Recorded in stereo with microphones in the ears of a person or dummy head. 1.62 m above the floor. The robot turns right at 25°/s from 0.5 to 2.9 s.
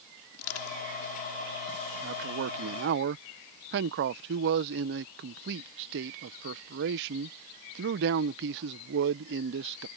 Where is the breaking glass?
No breaking glass in this recording.